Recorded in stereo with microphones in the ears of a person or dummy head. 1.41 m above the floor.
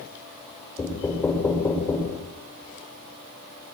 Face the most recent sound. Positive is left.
turn(degrees=15)  # may be behind; listen again after turning